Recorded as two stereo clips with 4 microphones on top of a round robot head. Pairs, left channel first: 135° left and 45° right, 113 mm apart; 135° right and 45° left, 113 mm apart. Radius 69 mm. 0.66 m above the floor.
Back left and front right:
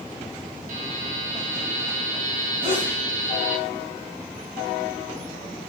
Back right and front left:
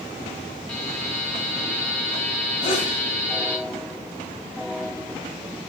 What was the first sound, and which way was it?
A buzzer, 55° right.